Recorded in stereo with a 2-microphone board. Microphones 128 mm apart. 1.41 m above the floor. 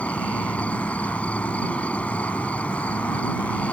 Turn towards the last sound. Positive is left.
turn(degrees=10)  # may be behind; listen again after turning